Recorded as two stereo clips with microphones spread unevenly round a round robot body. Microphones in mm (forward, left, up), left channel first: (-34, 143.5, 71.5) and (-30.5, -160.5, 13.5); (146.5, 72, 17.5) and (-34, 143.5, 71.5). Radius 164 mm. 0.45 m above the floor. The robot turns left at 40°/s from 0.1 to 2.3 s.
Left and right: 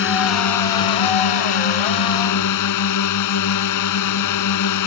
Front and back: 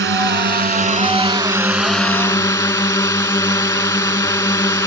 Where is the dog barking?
I don't hear a dog barking.